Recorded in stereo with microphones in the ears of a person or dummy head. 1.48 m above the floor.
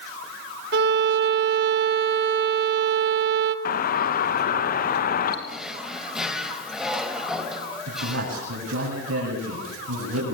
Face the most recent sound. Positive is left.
turn(degrees=-85)